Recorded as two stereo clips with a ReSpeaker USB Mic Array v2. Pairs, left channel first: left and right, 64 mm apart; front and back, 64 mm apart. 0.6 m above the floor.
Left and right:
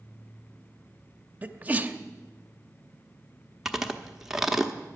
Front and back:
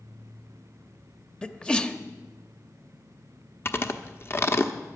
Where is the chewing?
10° right, 1.0 m.